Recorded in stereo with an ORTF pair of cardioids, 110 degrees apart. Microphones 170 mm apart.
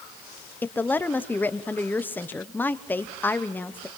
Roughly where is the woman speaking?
Ahead.